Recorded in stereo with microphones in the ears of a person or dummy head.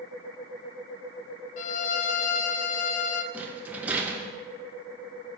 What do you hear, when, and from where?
1.6 s a violin: 50° left (ahead or behind), 0.7 m
3.3 s a rattle: 5° right (ahead or behind), 1.5 m